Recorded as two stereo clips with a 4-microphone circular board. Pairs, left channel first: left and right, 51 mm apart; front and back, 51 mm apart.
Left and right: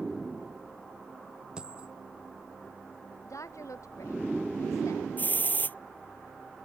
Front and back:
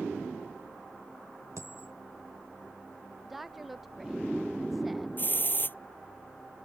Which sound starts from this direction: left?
A woman speaking, at 3.2 s.